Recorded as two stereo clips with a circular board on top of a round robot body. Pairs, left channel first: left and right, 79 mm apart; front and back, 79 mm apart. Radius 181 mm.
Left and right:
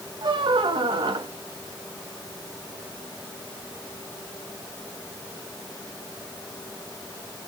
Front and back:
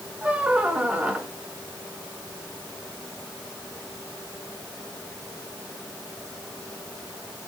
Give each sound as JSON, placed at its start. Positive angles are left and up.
{"t": 0.2, "sound": "a squeak", "azimuth_deg": -105, "distance_m": 0.8}